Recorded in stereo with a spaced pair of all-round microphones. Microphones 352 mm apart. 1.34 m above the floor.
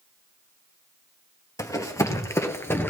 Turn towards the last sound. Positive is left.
turn(degrees=5)  # may be behind; listen again after turning